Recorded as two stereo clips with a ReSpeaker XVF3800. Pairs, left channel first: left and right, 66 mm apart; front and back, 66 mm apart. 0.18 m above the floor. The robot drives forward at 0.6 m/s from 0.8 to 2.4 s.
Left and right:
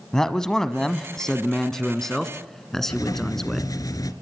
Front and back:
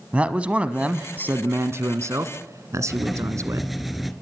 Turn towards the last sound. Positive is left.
turn(degrees=90)